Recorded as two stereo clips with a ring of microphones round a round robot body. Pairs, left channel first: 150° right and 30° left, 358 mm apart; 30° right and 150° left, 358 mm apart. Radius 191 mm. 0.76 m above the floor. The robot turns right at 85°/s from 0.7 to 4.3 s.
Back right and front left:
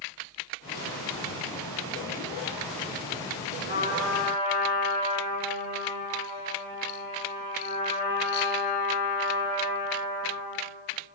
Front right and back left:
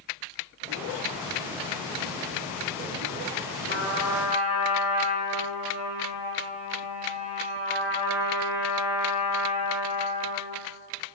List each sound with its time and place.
3.7 s a trumpet: 90° left, 2 m; by 10.6 s 140° left, 2 m